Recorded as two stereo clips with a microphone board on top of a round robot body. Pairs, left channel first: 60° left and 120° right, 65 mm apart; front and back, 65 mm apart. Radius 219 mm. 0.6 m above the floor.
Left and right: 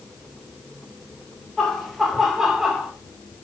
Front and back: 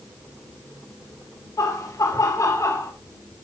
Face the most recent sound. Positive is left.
turn(degrees=-35)